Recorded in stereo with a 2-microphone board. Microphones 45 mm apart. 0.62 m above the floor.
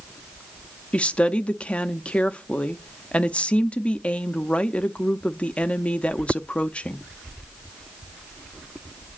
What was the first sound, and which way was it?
A woman speaking, 25° left (ahead or behind).